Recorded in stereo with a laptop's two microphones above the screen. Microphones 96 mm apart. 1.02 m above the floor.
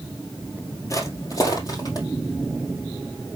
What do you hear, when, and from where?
0.9 s footsteps: 30° left (ahead or behind), 1.6 m; by 2.1 s 40° left (ahead or behind), 2.5 m